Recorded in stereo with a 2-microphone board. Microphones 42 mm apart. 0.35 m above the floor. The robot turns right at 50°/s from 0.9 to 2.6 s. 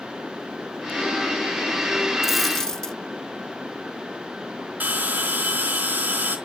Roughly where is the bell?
Right.